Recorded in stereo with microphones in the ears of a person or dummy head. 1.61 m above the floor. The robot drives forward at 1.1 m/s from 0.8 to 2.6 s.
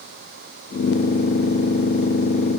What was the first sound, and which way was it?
Only background noise.